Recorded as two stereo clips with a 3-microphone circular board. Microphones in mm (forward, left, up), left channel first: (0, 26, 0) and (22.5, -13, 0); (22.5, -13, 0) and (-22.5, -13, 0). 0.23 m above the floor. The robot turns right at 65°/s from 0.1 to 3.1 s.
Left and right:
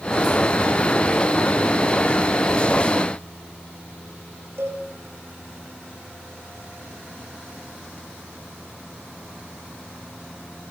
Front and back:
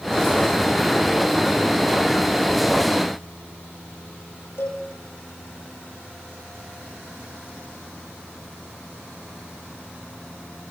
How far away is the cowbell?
About 10 m.